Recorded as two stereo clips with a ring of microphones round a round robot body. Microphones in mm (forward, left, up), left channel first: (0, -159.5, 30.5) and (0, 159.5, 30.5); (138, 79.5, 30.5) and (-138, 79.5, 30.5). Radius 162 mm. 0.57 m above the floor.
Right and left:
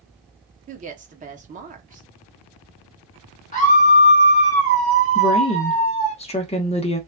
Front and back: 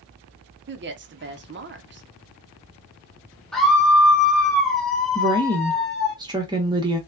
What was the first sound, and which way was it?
A woman speaking, 150° left.